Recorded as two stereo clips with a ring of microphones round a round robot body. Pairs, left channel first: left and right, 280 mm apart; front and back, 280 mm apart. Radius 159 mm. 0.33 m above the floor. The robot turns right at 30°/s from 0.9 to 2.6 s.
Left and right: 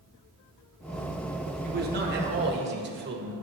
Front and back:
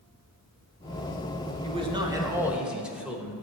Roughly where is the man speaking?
Behind right.